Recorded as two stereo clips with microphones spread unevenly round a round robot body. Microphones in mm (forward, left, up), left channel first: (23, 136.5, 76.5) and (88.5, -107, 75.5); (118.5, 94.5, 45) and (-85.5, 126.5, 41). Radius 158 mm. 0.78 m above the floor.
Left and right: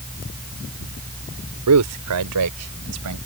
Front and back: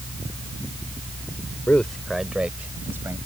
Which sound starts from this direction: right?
A man speaking, at 1.7 s.